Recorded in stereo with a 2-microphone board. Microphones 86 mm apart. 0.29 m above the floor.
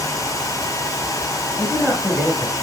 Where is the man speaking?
10° left (ahead or behind), 5 m.